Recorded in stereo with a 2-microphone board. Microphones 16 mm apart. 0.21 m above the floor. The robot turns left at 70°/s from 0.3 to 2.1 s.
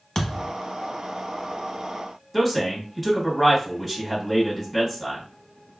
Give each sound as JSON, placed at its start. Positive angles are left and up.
{"t": 0.1, "sound": "a thud", "side_deg": 35, "distance_m": 0.8}
{"t": 2.3, "sound": "a man speaking", "side_deg": -10, "distance_m": 1.4}